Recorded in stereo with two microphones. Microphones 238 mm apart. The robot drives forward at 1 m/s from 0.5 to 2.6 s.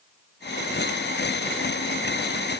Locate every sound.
Only background noise.